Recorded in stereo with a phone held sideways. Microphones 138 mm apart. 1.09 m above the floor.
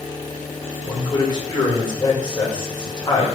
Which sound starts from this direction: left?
A man speaking, at 0.8 s.